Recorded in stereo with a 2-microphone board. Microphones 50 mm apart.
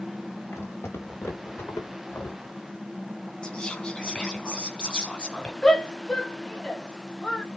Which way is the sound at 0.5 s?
60° left (ahead or behind).